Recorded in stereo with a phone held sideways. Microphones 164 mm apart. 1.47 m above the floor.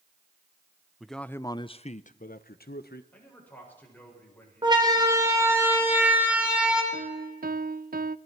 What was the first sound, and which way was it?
A man speaking, centre (ahead or behind).